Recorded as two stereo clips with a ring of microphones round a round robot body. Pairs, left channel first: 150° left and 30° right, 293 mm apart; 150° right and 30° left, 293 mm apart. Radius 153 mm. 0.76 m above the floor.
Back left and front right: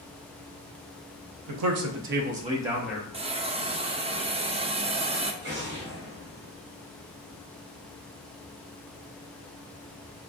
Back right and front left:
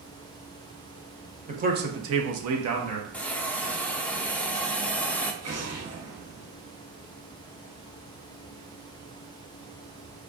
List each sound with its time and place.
1.5 s a man speaking: 35° right, 1.0 m; by 3.0 s 65° left, 1.2 m
3.1 s a hiss: 70° right, 0.6 m
5.4 s an explosion: 15° left, 1.5 m